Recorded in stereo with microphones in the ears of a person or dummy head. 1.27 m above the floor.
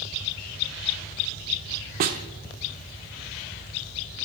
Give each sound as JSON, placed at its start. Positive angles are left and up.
{"t": 2.0, "sound": "a snare drum", "side_deg": -45, "distance_m": 1.2}